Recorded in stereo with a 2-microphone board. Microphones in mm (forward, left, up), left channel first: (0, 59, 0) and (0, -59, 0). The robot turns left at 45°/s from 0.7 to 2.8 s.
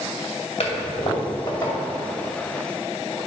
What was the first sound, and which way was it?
A toilet flushing, 65° left (ahead or behind).